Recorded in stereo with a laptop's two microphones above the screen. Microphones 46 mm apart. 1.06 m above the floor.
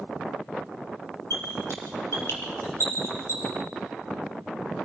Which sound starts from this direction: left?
A squeak, at 1.3 s.